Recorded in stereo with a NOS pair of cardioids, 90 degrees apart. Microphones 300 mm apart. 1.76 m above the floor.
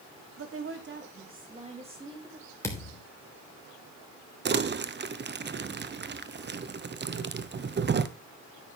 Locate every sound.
0.4 s a woman speaking: 50° right, 2.5 m; by 2.5 s 10° right, 3.5 m
2.6 s a thud: 10° left, 3.5 m
4.5 s crumpling: 35° right, 1.1 m